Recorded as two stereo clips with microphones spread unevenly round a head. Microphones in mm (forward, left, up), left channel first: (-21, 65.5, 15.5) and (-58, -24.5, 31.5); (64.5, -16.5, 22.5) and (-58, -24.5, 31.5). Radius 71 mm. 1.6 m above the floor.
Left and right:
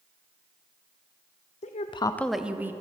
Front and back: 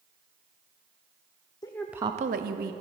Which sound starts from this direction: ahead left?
A woman speaking, at 1.6 s.